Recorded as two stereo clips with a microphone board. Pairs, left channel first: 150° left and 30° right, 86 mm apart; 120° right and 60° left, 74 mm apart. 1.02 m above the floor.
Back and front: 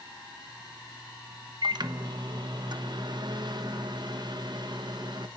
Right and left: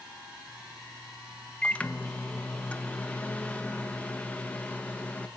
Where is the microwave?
50° right, 0.9 m.